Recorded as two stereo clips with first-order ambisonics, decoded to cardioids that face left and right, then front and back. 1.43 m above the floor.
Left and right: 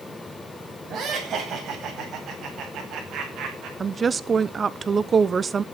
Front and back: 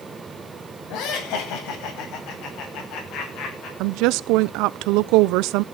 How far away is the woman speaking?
About 0.7 m.